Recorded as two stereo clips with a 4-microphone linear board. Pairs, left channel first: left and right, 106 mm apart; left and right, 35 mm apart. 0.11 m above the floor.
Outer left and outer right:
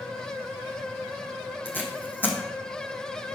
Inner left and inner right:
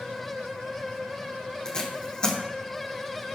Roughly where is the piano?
No piano in this recording.